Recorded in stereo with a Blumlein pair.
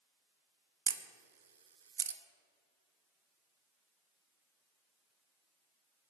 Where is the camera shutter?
70° right, 0.8 m.